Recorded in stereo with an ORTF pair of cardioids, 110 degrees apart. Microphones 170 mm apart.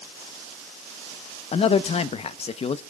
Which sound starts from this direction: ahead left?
A man speaking, at 1.5 s.